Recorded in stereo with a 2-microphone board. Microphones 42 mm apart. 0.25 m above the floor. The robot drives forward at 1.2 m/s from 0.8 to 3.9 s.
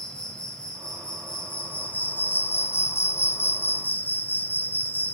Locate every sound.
0.0 s an insect: 25° left (ahead or behind), 3 m; by 5.2 s 55° left (ahead or behind), 1.7 m